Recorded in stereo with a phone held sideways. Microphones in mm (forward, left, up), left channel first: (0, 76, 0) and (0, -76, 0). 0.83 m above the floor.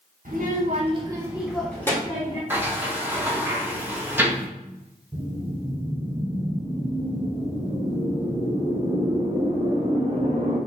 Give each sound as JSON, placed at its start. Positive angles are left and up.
{"t": 0.2, "sound": "a child speaking", "side_deg": -70, "distance_m": 1.1}
{"t": 2.5, "sound": "a sliding door", "side_deg": -15, "distance_m": 0.9}
{"t": 5.1, "sound": "a whoosh", "side_deg": -40, "distance_m": 1.3}